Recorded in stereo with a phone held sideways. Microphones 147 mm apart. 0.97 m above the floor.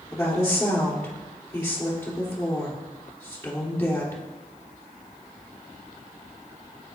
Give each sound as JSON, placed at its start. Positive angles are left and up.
{"t": 0.1, "sound": "a woman speaking", "side_deg": 15, "distance_m": 2.5}